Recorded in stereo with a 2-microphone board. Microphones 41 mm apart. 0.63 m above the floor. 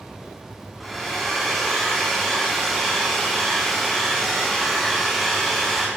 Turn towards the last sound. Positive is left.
turn(degrees=5)  # may be behind; listen again after turning